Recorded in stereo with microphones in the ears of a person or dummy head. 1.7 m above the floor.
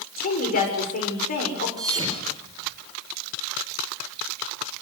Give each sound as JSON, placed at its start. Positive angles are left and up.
{"t": 0.2, "sound": "a woman speaking", "side_deg": 50, "distance_m": 7.0}
{"t": 1.8, "sound": "a thud", "side_deg": -20, "distance_m": 4.5}